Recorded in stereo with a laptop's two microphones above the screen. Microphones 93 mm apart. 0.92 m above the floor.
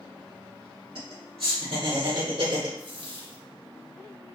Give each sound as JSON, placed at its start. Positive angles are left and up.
{"t": 0.9, "sound": "laughter", "side_deg": -65, "distance_m": 2.5}
{"t": 2.8, "sound": "a dropped coin", "side_deg": -65, "distance_m": 2.0}